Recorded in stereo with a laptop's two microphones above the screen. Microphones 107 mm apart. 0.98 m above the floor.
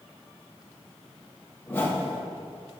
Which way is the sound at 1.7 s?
20° left (ahead or behind).